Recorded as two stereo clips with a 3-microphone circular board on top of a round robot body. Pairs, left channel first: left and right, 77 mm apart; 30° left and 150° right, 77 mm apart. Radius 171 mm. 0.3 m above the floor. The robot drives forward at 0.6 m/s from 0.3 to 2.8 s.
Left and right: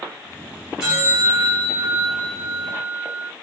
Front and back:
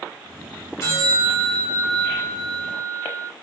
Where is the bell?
10° right, 2 m; by 3.3 s 35° right, 1.5 m.